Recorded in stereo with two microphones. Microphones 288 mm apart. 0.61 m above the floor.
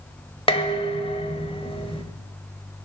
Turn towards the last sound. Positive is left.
turn(degrees=20)  # may be behind; listen again after turning